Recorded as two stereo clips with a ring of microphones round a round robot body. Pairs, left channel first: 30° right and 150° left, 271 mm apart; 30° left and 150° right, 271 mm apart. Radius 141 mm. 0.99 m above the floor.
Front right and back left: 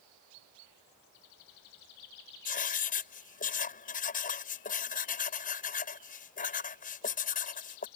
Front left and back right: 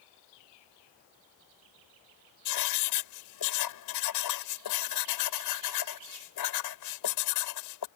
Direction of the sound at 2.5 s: 30° left.